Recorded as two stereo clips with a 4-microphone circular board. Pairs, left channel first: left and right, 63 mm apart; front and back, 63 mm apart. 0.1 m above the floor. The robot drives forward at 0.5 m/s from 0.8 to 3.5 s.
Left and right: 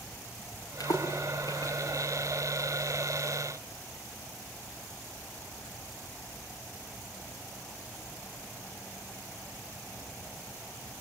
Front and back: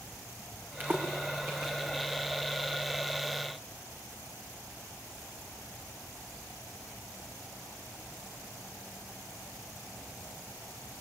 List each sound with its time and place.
0.8 s a splash: 115° left, 5 m; by 1.7 s 120° left, 5 m